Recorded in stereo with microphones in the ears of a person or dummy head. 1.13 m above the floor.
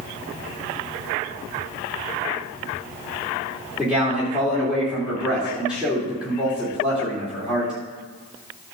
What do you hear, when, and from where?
3.8 s a man speaking: 5° right (ahead or behind), 2.5 m